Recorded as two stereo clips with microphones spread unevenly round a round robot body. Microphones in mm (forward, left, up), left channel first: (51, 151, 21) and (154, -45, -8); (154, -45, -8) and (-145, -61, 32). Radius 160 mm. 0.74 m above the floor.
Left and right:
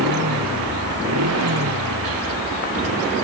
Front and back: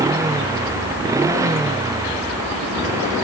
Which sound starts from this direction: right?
A motorcycle, at 0.0 s.